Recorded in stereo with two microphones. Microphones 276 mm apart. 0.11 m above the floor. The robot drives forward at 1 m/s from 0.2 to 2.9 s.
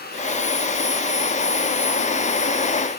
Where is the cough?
No cough in this recording.